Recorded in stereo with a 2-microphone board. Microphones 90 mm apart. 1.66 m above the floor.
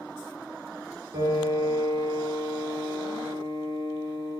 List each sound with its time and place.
1.1 s a piano: 45° right (ahead or behind), 1.0 m